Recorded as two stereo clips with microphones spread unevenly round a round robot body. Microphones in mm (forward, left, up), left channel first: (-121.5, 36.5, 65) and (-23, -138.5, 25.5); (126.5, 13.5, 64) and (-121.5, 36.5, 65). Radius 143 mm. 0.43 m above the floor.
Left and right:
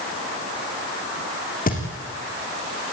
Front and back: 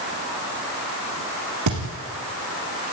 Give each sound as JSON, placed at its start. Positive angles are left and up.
{"t": 1.7, "sound": "a thud", "azimuth_deg": 165, "distance_m": 5.5}